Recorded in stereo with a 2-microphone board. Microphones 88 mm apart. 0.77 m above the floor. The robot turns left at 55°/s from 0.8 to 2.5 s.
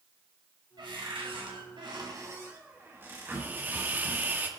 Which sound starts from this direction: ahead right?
A cupboard door, at 0.8 s.